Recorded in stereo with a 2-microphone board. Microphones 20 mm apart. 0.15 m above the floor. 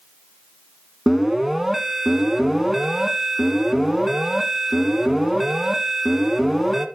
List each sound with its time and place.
1.1 s an alarm: 20° right (ahead or behind), 1.1 m